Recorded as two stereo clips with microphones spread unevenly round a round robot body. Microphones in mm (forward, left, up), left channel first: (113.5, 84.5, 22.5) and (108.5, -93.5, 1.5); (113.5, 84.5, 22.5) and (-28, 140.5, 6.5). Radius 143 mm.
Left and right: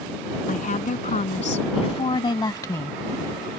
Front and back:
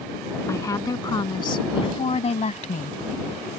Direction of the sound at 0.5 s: 50° left.